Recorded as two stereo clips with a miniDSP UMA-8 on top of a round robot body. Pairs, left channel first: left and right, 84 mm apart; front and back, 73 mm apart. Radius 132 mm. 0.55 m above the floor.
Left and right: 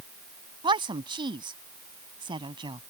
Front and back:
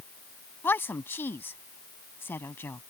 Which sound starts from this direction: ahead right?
A woman speaking, at 0.6 s.